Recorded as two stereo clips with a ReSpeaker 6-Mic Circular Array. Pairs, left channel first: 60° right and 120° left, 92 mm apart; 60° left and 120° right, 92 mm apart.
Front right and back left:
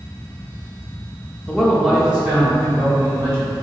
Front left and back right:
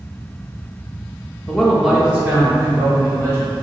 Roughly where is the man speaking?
Ahead.